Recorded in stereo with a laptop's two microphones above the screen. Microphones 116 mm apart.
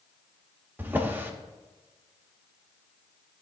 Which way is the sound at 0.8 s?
15° right (ahead or behind).